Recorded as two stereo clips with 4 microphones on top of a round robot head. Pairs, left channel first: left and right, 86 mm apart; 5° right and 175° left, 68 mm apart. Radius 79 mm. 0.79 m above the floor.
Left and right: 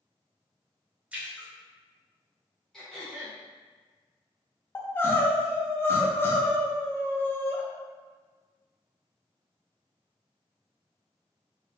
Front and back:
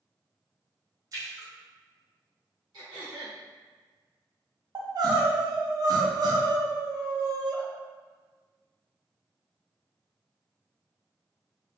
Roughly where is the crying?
Behind left.